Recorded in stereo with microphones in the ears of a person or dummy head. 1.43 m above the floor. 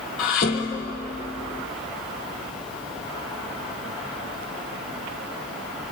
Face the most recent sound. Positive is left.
turn(degrees=20)  # may be behind; listen again after turning